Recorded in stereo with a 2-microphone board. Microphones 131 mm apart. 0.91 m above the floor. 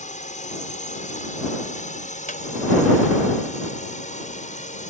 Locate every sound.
0.0 s a drone: 65° left (ahead or behind)
2.3 s a squeak: 90° left